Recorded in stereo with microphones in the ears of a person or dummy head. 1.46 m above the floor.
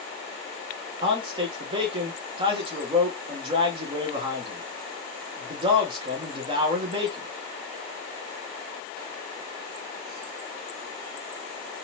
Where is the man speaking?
30° right (ahead or behind), 1.2 m.